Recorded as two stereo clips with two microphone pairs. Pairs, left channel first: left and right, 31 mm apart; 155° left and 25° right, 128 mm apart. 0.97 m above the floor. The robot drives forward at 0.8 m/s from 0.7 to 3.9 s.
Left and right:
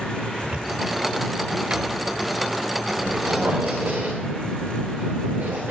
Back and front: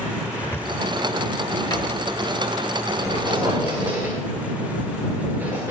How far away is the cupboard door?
About 2.5 m.